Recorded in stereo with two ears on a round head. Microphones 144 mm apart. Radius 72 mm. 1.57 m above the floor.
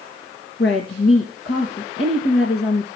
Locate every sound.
0.6 s a woman speaking: 75° left (ahead or behind), 2 m